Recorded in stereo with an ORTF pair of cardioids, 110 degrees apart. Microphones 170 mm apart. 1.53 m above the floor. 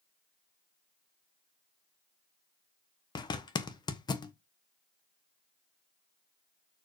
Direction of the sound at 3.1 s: 25° left.